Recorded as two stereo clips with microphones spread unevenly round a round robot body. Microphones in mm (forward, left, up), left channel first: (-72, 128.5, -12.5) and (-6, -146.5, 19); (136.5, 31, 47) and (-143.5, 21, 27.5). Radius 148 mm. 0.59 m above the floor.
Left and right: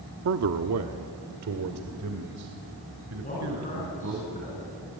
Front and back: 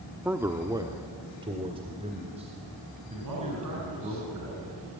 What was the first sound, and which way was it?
A man speaking, 100° right.